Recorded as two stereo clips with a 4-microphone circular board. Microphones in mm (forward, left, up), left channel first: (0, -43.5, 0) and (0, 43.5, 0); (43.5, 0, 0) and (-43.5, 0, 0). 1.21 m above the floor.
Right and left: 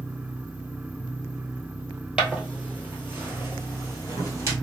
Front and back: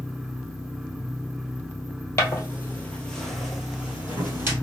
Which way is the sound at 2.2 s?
20° left.